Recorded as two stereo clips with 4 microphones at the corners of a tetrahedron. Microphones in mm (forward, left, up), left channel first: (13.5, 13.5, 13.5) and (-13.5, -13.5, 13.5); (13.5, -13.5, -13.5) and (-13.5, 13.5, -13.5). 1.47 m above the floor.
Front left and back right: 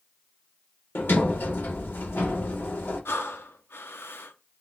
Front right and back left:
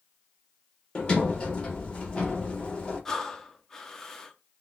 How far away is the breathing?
About 0.6 m.